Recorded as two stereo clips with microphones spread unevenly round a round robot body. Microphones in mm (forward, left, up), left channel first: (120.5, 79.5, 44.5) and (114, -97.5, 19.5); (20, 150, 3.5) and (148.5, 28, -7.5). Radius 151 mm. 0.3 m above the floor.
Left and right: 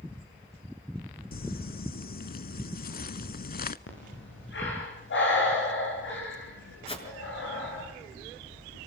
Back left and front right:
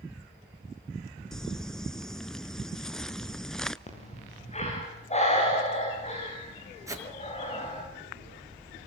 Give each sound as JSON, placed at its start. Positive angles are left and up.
{"t": 1.3, "sound": "crumpling", "azimuth_deg": 50, "distance_m": 0.8}
{"t": 3.9, "sound": "breathing", "azimuth_deg": 85, "distance_m": 9.5}
{"t": 6.9, "sound": "a whoosh", "azimuth_deg": 30, "distance_m": 5.5}